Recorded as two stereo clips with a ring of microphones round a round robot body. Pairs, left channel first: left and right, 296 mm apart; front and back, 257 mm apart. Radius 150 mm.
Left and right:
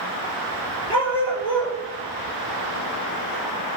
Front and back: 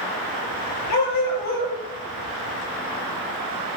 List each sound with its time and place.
0.9 s a dog barking: 15° left, 4 m